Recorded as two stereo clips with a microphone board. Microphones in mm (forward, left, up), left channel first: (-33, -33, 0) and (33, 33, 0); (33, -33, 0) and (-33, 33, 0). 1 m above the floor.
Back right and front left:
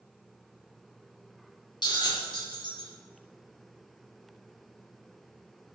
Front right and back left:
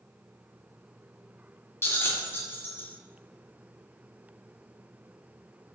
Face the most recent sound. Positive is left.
turn(degrees=-105)